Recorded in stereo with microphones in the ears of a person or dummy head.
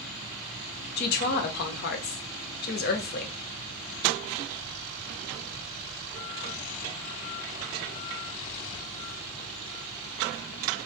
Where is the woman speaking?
40° left (ahead or behind), 0.6 m.